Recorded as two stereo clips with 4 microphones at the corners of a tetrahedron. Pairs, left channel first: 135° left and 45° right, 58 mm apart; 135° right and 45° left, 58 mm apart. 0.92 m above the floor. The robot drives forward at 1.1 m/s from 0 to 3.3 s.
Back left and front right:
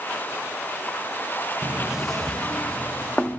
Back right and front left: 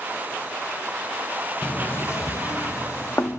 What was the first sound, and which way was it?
Knocking, 75° right.